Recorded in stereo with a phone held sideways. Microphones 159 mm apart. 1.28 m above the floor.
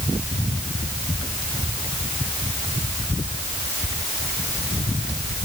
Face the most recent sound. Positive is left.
No sound to turn to.